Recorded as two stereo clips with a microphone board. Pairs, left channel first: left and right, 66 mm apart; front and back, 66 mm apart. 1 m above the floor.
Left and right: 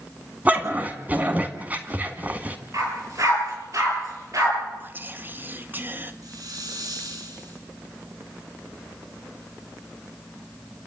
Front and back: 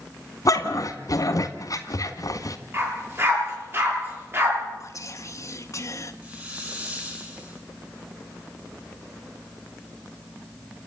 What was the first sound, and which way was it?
A dog barking, 25° right.